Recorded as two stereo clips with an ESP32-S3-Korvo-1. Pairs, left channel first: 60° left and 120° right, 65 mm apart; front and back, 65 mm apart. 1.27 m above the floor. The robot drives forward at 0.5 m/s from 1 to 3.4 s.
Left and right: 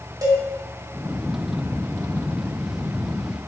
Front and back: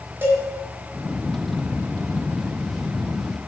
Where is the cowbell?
125° right, 1.9 m.